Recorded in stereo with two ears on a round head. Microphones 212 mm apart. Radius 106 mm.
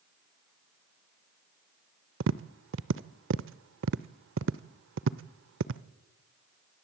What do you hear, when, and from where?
2.2 s tapping: 55° right (ahead or behind), 0.7 m